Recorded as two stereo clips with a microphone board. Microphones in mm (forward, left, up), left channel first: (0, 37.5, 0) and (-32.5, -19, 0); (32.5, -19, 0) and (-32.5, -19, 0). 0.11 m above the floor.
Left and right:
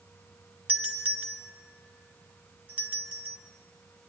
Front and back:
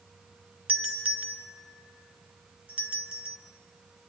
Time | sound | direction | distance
0.7 | a doorbell | 140° right | 1.5 m